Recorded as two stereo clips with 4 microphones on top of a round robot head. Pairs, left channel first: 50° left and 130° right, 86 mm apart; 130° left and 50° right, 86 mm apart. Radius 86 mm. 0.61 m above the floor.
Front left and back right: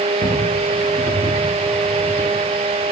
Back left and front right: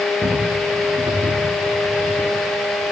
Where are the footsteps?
25° left, 5.5 m; by 2.3 s 10° left, 5.5 m.